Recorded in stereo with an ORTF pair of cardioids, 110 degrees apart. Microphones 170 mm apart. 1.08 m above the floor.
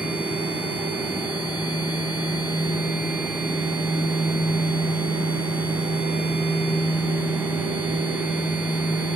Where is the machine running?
10° right, 0.7 m.